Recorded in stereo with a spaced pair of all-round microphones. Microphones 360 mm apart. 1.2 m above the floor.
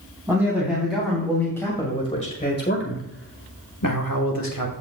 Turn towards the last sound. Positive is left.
turn(degrees=75)  # may be behind; listen again after turning